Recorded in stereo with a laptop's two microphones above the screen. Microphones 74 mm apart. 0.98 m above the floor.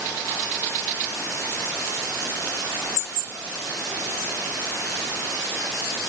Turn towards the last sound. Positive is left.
No sound to turn to.